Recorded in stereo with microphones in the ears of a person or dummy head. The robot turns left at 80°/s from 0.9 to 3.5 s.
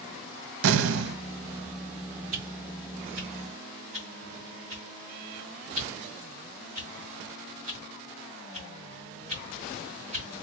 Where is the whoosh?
35° right (ahead or behind), 2 m; by 10.3 s 45° right (ahead or behind), 2 m.